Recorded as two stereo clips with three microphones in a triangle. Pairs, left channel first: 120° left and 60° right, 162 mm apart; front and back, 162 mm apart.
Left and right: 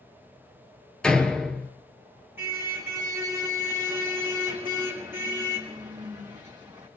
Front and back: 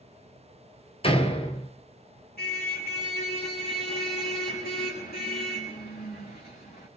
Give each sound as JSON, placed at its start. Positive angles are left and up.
{"t": 1.0, "sound": "a door slam", "azimuth_deg": 35, "distance_m": 1.2}
{"t": 2.4, "sound": "a car horn", "azimuth_deg": 15, "distance_m": 3.5}